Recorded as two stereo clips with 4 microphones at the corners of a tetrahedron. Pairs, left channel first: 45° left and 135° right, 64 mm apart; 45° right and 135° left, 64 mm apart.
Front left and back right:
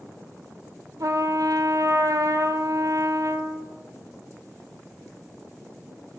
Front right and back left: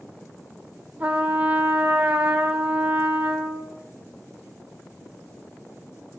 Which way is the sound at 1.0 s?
160° right.